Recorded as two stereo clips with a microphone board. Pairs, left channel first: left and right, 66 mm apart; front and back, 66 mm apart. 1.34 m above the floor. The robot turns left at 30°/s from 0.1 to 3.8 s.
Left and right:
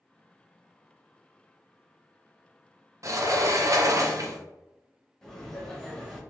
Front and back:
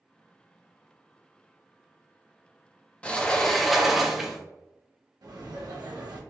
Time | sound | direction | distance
3.0 | a sliding door | 70° right | 0.5 m
5.2 | laughter | 170° left | 1.2 m